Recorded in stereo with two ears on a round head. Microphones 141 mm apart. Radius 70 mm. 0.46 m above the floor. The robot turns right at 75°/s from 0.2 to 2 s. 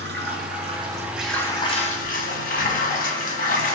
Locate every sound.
0.0 s running water: 80° right, 2 m; by 3.8 s 55° left, 2 m